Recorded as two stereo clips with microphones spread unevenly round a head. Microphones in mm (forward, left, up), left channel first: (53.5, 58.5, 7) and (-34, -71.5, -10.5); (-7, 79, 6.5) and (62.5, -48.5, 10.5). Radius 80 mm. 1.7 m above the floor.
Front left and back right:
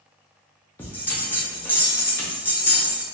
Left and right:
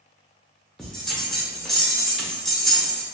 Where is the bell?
30° left, 0.5 m.